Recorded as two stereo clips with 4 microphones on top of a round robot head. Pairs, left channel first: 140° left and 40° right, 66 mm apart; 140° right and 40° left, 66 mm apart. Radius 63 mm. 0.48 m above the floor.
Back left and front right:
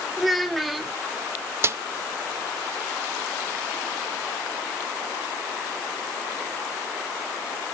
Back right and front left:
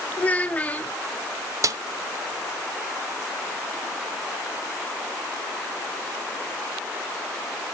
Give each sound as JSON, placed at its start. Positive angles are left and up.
{"t": 0.2, "sound": "a child speaking", "azimuth_deg": -130, "distance_m": 0.7}
{"t": 1.6, "sound": "a snare drum", "azimuth_deg": 5, "distance_m": 0.6}